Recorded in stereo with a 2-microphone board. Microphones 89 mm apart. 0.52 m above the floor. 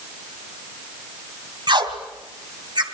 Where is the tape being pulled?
60° right (ahead or behind), 2.5 m.